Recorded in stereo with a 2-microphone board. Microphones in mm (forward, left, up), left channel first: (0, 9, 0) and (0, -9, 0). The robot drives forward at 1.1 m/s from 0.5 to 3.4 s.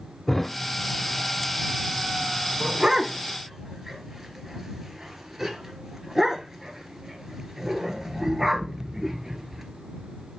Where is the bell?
No bell in this recording.